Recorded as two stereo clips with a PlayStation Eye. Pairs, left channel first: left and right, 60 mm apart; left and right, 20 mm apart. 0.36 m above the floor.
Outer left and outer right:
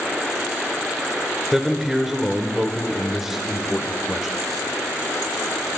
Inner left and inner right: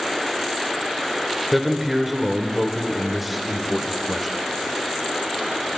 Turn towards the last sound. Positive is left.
turn(degrees=-5)  # may be behind; listen again after turning